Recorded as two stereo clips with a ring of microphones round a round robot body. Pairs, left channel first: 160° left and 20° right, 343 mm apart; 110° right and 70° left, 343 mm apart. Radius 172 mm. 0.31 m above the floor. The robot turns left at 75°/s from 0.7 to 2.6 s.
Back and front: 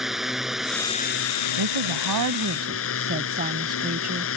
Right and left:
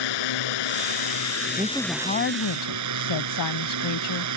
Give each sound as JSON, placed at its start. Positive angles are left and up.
{"t": 0.0, "sound": "a drone", "azimuth_deg": -110}
{"t": 1.6, "sound": "a woman speaking", "azimuth_deg": -5}